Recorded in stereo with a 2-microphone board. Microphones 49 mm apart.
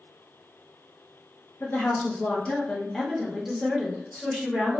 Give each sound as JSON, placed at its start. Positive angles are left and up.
{"t": 1.6, "sound": "a woman speaking", "side_deg": 40, "distance_m": 1.0}